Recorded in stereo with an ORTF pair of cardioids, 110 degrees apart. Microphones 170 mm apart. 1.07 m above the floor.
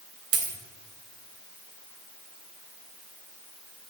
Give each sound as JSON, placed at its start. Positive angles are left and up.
{"t": 0.3, "sound": "a dropped coin", "azimuth_deg": -70, "distance_m": 3.0}